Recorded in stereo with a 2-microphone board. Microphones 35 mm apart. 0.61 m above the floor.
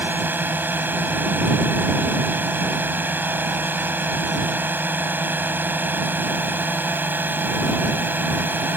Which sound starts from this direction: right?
A drone, at 0.0 s.